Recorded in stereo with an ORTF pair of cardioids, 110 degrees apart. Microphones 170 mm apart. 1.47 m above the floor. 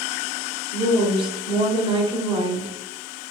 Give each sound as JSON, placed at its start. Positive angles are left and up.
{"t": 0.7, "sound": "a woman speaking", "azimuth_deg": -30, "distance_m": 0.9}